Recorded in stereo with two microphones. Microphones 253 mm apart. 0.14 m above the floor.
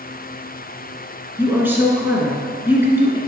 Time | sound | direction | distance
1.4 | a woman speaking | 10° right (ahead or behind) | 2 m